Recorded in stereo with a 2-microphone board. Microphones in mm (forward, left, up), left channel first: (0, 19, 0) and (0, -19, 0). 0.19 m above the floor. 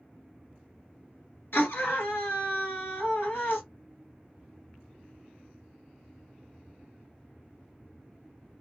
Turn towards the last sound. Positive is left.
turn(degrees=60)  # may be behind; listen again after turning